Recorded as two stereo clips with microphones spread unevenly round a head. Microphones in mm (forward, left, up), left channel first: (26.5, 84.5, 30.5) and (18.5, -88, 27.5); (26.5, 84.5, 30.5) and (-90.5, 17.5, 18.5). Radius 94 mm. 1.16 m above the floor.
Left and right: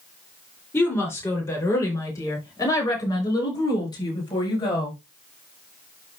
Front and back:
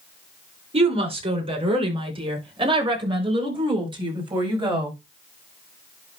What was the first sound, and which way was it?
A woman speaking, 165° left.